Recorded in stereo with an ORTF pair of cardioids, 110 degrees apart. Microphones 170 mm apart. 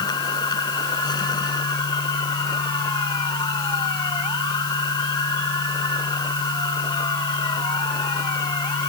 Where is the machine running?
25° left.